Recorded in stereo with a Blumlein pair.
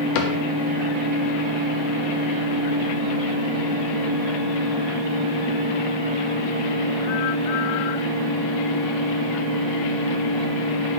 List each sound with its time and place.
0.1 s a cupboard door: 45° left, 1.1 m